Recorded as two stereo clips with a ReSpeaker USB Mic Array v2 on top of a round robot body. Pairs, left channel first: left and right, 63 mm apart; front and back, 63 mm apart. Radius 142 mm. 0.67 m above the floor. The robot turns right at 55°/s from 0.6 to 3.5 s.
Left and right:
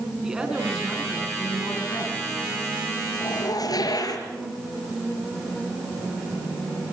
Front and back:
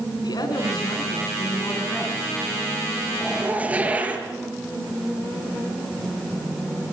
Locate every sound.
0.2 s a woman speaking: 10° right, 6.5 m; by 2.2 s 75° left, 6.5 m
3.2 s a zipper: 95° left, 5 m; by 4.3 s 110° left, 5 m